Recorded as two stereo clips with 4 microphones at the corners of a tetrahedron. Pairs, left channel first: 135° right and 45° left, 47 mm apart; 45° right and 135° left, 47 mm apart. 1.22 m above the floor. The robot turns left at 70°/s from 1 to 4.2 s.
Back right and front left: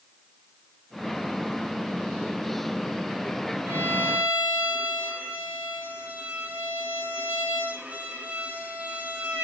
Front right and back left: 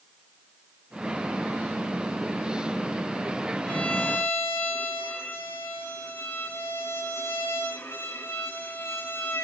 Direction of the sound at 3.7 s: 25° left.